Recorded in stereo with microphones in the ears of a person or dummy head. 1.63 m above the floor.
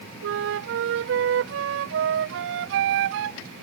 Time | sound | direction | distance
0.2 | a flute | 65° right (ahead or behind) | ?